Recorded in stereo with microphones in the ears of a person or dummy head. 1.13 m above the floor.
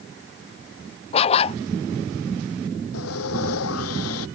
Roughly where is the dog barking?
Left.